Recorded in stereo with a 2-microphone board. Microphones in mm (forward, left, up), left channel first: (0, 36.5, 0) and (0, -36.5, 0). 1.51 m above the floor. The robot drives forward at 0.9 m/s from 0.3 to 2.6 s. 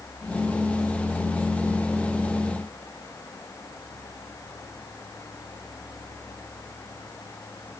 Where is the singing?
I don't hear singing.